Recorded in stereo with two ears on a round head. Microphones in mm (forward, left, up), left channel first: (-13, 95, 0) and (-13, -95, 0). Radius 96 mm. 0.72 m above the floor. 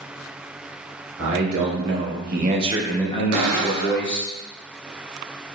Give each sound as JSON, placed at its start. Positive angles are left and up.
{"t": 1.2, "sound": "a man speaking", "side_deg": -70, "distance_m": 1.5}
{"t": 3.3, "sound": "a cupboard door", "side_deg": -80, "distance_m": 0.8}